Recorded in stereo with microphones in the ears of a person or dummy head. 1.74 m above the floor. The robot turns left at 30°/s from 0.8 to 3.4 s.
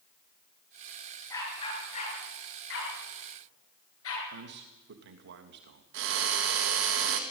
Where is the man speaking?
65° right (ahead or behind), 3 m.